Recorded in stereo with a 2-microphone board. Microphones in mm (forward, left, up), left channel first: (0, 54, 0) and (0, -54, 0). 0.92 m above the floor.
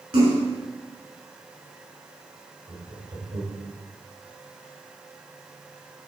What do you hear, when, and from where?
0.1 s a splash: 70° right (ahead or behind), 5.5 m
2.7 s laughter: 75° right (ahead or behind), 5 m